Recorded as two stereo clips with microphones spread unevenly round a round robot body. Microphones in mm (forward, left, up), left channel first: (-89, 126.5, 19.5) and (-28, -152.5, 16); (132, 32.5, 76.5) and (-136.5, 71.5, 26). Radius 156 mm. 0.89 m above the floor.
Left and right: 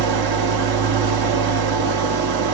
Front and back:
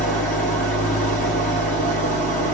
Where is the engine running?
70° right, 0.8 m.